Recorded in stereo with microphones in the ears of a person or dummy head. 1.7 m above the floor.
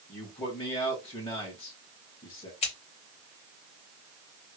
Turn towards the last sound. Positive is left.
turn(degrees=30)  # may be behind; listen again after turning